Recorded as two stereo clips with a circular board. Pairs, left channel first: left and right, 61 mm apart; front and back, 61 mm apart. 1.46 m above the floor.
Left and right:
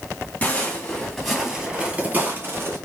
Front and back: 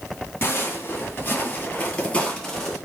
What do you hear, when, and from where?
0.4 s footsteps: 35° left, 2 m; by 2.8 s 85° right, 1.9 m